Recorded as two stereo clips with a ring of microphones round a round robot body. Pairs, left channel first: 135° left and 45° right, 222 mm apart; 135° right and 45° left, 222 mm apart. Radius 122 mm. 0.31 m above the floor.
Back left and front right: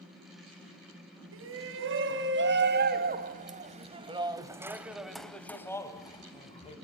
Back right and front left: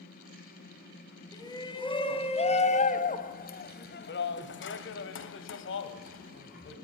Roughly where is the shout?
Ahead right.